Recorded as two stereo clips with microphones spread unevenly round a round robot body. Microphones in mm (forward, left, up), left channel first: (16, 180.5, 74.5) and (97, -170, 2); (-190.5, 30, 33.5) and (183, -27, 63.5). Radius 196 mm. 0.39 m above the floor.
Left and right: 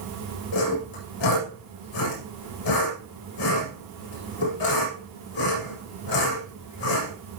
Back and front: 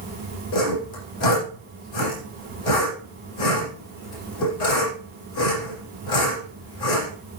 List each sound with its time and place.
0.5 s sawing: 145° left, 8 m